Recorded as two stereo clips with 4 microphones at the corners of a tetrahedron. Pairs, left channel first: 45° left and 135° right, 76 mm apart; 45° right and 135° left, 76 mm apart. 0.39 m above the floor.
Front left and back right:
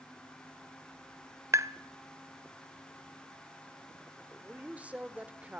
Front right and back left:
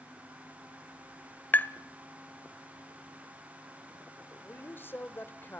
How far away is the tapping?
About 0.9 m.